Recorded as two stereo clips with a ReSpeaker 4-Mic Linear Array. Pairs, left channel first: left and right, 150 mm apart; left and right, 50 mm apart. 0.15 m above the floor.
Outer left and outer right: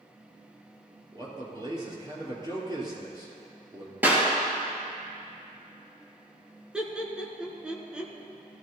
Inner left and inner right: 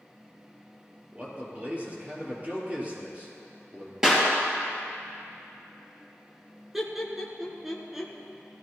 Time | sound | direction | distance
1.1 | a man speaking | 30° right (ahead or behind) | 3.5 m
4.0 | a clap | 15° right (ahead or behind) | 3 m
6.7 | laughter | 5° right (ahead or behind) | 1.6 m